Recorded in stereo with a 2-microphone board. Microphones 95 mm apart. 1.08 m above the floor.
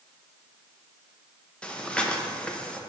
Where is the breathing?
10° left (ahead or behind), 0.7 m.